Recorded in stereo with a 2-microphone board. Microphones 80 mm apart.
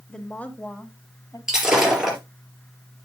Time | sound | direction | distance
0.1 | a woman speaking | 5° left (ahead or behind) | 1.1 m
1.5 | breaking glass | 5° right (ahead or behind) | 3.5 m